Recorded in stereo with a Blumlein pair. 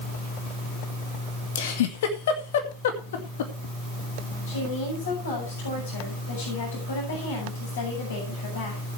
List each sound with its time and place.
1.6 s a giggle: 55° left, 2 m
4.5 s a woman speaking: 65° left, 7 m